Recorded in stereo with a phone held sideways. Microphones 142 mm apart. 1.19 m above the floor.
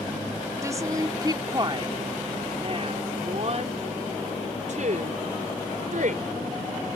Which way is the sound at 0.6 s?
20° right (ahead or behind).